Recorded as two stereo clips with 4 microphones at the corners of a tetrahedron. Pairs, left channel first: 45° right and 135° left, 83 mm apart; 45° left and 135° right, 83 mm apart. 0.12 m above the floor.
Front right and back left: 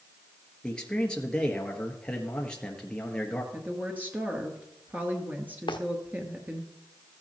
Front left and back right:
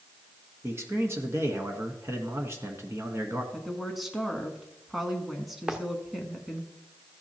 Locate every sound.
0.6 s a man speaking: 115° right, 1.3 m
3.5 s a woman speaking: 140° left, 1.1 m
5.7 s footsteps: 55° right, 1.2 m